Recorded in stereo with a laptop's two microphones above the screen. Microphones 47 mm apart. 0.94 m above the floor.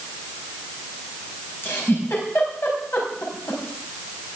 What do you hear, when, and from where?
1.6 s a giggle: 60° left (ahead or behind), 4.5 m